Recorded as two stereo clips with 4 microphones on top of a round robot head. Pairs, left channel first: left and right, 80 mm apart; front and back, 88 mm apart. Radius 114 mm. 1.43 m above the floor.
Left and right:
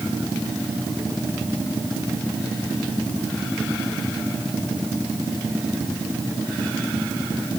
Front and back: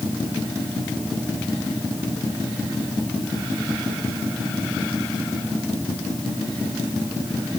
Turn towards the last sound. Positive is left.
No sound to turn to.